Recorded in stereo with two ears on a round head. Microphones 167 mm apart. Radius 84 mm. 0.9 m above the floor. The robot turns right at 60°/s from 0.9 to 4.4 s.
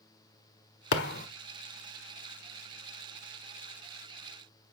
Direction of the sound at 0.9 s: 70° left (ahead or behind).